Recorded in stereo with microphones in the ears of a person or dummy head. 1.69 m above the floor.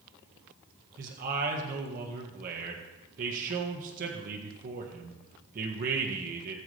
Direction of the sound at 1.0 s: 50° right (ahead or behind).